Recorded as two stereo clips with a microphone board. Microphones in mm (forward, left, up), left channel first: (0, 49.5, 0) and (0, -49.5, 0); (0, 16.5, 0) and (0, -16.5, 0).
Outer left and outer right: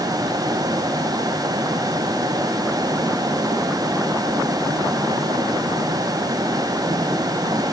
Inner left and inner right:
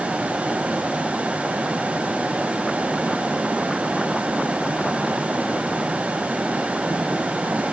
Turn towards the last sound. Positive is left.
No sound to turn to.